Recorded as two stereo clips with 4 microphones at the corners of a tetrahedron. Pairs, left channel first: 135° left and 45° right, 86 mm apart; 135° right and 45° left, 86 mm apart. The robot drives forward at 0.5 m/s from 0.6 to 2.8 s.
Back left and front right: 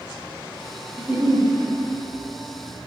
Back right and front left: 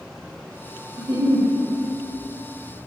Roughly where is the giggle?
Ahead left.